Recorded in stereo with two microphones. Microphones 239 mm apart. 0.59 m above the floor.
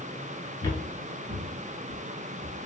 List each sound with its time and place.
0.6 s footsteps: 15° left (ahead or behind), 0.6 m; by 2.6 s 65° right (ahead or behind), 1.2 m